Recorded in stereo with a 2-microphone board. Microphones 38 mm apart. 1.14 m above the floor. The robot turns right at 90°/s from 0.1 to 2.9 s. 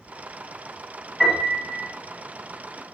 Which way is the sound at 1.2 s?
155° left.